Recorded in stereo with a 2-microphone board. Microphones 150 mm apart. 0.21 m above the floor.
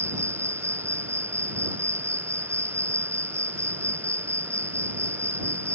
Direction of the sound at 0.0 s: 15° right (ahead or behind).